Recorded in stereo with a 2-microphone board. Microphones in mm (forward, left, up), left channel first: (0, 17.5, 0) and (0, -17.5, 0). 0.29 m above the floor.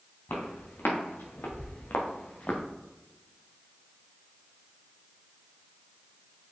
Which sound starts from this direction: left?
Footsteps, at 0.3 s.